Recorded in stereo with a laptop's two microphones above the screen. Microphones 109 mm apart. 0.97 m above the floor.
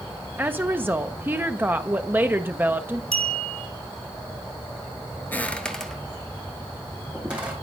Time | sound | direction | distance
0.4 | a woman speaking | 20° right (ahead or behind) | 0.6 m
3.1 | a clink | 65° right (ahead or behind) | 1.9 m
5.3 | footsteps | 20° left (ahead or behind) | 1.0 m